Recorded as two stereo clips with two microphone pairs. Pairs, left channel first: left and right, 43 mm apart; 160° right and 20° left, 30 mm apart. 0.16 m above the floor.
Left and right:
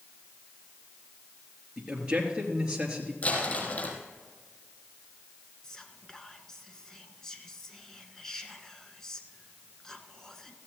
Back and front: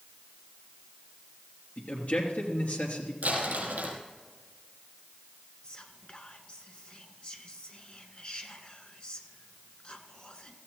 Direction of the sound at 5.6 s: 160° left.